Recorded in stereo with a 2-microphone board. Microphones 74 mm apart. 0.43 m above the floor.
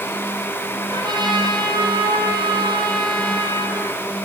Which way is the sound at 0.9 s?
85° right.